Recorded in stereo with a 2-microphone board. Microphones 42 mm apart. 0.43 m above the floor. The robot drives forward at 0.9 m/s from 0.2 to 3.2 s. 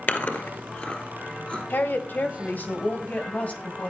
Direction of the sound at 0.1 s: 55° left (ahead or behind).